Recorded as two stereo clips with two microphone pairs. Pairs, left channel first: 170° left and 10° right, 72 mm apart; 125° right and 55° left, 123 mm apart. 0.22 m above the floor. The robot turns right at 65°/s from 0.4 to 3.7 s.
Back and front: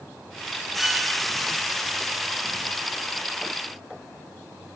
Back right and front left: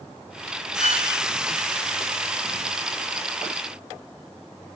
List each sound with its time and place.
0.8 s a violin: 65° left, 3 m; by 1.1 s 85° left, 3 m